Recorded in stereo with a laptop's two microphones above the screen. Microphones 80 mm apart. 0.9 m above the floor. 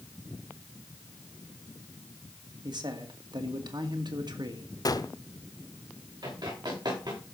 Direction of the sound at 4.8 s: 55° left (ahead or behind).